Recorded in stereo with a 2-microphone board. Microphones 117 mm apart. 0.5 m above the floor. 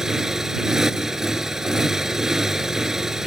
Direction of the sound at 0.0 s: 5° right (ahead or behind).